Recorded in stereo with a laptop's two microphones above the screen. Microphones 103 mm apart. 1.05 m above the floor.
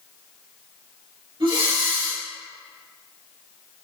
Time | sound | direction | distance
1.4 | breathing | 55° right (ahead or behind) | 1.5 m